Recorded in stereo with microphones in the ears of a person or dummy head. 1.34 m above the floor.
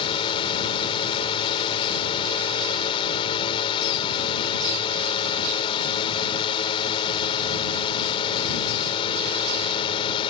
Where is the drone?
30° left (ahead or behind).